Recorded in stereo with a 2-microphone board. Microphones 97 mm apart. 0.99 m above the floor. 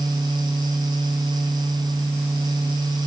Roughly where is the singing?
I don't hear singing.